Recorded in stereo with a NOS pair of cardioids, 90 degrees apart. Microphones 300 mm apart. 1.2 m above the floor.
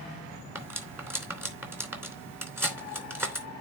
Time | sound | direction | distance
0.6 | cutlery clinking | 5° right | 2.5 m